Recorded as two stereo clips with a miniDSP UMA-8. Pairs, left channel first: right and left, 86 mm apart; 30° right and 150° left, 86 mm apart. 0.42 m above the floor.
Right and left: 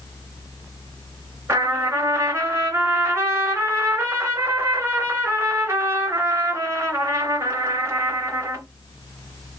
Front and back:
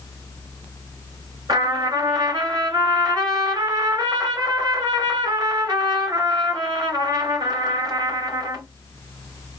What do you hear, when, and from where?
1.5 s a trumpet: 135° left, 2.5 m